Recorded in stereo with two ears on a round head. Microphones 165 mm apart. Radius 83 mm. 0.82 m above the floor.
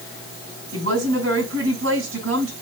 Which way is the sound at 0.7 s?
75° right (ahead or behind).